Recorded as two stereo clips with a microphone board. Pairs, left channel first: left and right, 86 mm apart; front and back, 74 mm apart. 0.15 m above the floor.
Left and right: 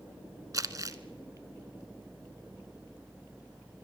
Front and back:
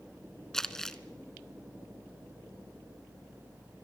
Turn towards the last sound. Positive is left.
turn(degrees=-80)